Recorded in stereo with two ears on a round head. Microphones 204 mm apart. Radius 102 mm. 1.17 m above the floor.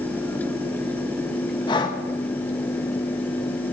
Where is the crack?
I don't hear a crack.